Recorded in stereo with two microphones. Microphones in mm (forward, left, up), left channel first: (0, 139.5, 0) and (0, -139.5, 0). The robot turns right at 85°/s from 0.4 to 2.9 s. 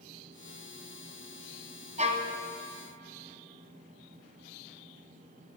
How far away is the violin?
About 1.4 m.